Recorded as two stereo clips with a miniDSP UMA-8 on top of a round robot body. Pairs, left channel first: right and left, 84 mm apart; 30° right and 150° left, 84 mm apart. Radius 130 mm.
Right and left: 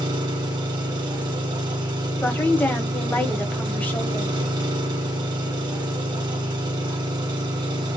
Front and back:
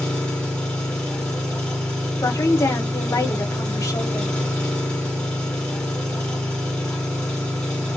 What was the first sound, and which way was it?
An engine running, 50° left.